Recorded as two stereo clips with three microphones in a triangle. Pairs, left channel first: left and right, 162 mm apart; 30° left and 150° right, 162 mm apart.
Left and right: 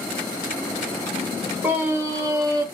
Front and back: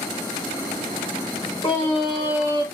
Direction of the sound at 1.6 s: 20° right.